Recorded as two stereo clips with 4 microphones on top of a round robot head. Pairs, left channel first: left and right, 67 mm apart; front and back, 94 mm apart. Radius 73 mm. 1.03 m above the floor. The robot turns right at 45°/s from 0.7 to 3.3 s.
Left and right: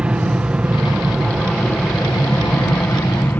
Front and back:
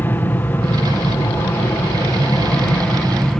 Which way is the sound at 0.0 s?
40° right.